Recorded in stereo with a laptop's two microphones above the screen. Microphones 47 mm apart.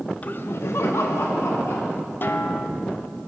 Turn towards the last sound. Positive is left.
turn(degrees=45)  # may be behind; listen again after turning